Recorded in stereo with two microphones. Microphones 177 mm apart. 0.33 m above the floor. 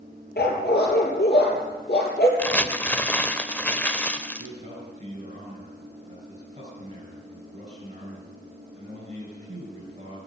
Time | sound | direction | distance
0.4 | a dog barking | 65° left (ahead or behind) | 3.5 m
2.4 | crumpling | 10° left (ahead or behind) | 0.7 m
4.4 | a man speaking | 40° right (ahead or behind) | 6.5 m